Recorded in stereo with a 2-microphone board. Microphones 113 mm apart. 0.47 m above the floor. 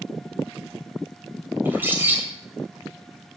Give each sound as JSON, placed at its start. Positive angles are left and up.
{"t": 1.6, "sound": "a bird", "side_deg": -15, "distance_m": 3.0}